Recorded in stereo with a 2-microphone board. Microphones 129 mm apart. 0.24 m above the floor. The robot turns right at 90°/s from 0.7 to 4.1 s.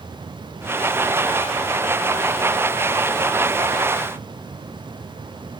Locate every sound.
Only background noise.